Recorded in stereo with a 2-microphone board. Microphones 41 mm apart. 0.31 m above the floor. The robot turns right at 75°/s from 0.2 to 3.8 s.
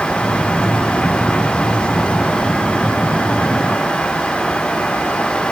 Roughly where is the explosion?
I don't hear an explosion.